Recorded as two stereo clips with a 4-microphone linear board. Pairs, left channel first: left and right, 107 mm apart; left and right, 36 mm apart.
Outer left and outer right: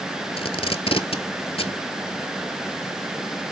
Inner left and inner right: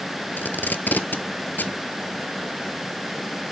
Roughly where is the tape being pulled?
Left.